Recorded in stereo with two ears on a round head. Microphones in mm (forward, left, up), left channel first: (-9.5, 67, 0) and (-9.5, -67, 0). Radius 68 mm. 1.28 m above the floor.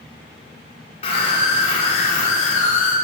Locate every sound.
1.0 s a scream: 45° left (ahead or behind), 4 m; by 2.9 s 55° left (ahead or behind), 3.5 m